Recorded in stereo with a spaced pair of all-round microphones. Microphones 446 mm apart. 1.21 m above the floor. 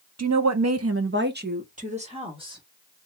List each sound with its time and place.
0.2 s a woman speaking: 35° right (ahead or behind), 0.5 m; by 2.6 s 10° right (ahead or behind), 1.4 m